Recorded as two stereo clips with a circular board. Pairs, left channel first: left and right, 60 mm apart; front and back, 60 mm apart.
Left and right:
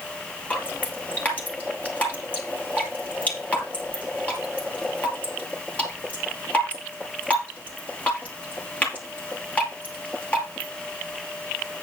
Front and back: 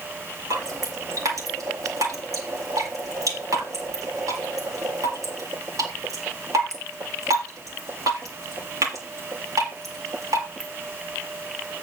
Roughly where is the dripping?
Behind left.